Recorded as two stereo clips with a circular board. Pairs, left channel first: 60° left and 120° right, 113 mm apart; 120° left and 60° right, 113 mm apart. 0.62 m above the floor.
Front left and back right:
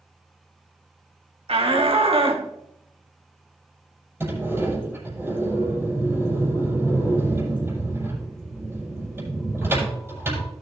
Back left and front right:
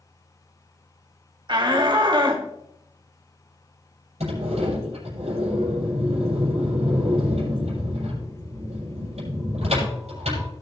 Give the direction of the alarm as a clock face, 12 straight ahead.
I don't hear an alarm.